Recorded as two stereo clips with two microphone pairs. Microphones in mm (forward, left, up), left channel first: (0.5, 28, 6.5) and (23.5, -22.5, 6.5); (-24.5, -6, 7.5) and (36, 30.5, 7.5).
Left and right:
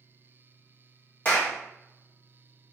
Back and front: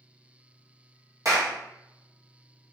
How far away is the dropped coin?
No dropped coin in this recording.